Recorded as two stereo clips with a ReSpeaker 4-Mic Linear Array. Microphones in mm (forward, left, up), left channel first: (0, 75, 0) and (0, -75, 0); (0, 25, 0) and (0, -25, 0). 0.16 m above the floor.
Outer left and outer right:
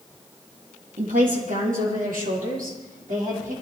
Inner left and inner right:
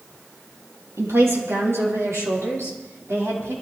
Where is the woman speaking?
75° right (ahead or behind), 4.5 m.